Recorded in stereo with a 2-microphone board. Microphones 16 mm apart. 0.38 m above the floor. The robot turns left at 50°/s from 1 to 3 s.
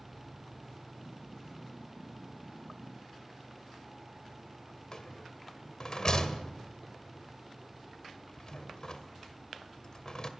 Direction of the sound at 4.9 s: 45° left (ahead or behind).